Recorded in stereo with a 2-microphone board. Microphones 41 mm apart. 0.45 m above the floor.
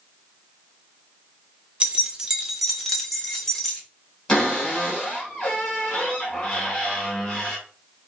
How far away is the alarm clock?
I don't hear an alarm clock.